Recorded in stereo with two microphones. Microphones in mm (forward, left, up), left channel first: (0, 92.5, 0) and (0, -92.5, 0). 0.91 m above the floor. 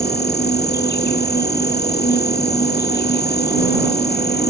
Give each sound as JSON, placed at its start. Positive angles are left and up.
{"t": 0.0, "sound": "an insect", "side_deg": 60}